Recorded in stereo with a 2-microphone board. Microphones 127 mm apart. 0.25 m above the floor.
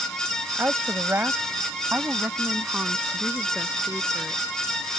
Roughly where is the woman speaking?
Centre.